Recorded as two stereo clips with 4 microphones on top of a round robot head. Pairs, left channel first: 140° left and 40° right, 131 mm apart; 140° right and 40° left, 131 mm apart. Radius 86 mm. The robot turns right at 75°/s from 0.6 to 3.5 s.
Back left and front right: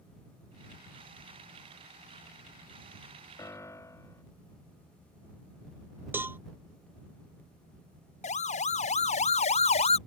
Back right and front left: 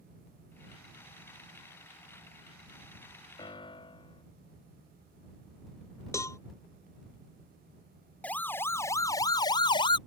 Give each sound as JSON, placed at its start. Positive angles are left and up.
{"t": 3.4, "sound": "a piano", "azimuth_deg": -170}
{"t": 6.1, "sound": "a cowbell", "azimuth_deg": -95}
{"t": 8.2, "sound": "a siren", "azimuth_deg": 145}